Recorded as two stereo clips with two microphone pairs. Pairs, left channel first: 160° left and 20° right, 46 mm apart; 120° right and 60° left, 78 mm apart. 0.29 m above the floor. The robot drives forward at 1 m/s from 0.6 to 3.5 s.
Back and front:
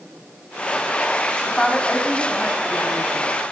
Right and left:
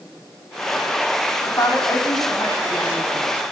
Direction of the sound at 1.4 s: 125° right.